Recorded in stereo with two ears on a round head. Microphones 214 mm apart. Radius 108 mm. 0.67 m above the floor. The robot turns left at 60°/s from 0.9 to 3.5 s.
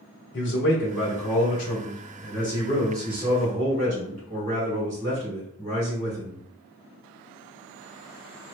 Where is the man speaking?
125° left, 1.4 m; by 6.4 s 30° right, 1.4 m.